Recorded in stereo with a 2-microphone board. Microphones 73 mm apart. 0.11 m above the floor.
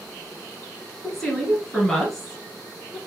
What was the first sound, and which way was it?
A woman speaking, 5° left (ahead or behind).